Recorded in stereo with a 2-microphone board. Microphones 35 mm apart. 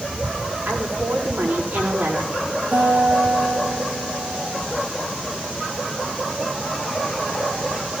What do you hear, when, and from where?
0.7 s a woman speaking: 50° right (ahead or behind), 7.5 m
2.7 s a guitar: 50° right (ahead or behind), 6.5 m